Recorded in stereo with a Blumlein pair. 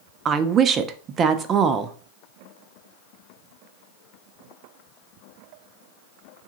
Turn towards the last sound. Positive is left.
turn(degrees=-25)